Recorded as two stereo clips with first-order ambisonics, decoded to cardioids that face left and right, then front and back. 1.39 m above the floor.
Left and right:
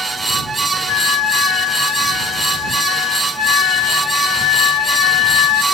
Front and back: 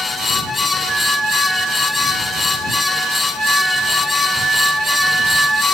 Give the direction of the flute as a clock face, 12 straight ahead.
9 o'clock.